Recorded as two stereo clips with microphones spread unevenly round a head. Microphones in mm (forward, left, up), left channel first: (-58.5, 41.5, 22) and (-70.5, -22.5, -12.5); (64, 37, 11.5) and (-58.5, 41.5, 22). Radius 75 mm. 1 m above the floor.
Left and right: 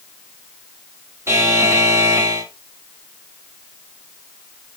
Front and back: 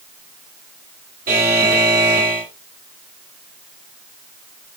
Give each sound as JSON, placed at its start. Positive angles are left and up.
{"t": 1.3, "sound": "a buzzer", "azimuth_deg": -145, "distance_m": 1.8}